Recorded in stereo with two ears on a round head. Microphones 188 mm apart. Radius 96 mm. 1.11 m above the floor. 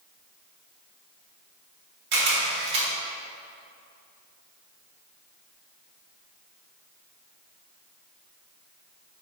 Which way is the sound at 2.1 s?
55° right (ahead or behind).